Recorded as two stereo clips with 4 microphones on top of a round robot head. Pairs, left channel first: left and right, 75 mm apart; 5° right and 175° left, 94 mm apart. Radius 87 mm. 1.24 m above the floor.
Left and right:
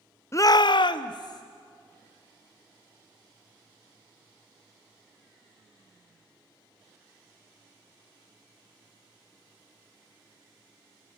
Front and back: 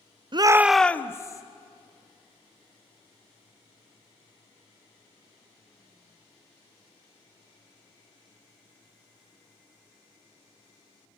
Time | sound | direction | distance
0.3 | a shout | 145° left | 0.6 m